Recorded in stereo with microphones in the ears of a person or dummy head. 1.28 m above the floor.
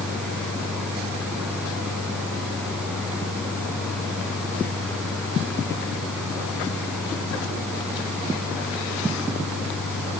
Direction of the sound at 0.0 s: 5° right (ahead or behind).